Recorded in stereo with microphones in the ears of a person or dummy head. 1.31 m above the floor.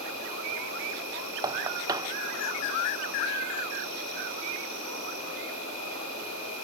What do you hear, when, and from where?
0.0 s an insect: 80° right, 7 m
1.4 s knocking: 20° right (ahead or behind), 0.5 m